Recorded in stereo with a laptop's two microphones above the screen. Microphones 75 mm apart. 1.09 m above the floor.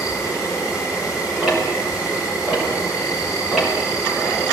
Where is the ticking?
5° right (ahead or behind), 4.5 m.